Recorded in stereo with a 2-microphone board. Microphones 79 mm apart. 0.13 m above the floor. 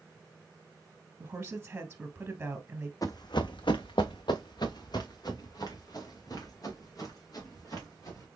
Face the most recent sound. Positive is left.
turn(degrees=45)  # may be behind; listen again after turning